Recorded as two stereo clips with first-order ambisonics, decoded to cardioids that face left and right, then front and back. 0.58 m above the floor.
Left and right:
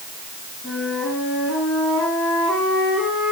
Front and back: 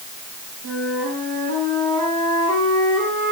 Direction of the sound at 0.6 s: 160° left.